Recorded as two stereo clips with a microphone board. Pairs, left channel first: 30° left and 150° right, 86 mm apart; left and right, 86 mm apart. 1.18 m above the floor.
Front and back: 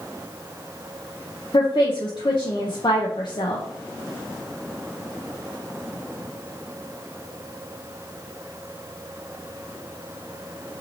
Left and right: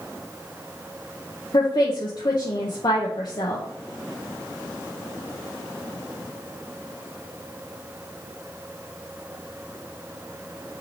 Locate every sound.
1.5 s a woman speaking: 60° left, 0.7 m